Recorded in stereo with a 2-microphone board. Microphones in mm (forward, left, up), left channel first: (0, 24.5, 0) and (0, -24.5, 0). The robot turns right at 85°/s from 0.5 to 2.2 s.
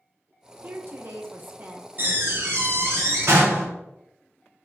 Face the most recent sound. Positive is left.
turn(degrees=-60)  # may be behind; listen again after turning